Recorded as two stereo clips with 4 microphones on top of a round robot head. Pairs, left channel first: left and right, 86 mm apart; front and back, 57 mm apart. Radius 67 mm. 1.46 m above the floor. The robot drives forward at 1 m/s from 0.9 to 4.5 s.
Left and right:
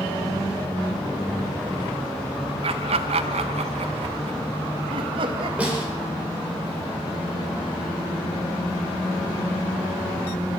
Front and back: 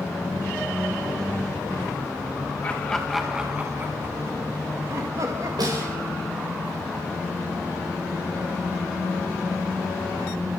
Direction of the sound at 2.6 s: 75° right.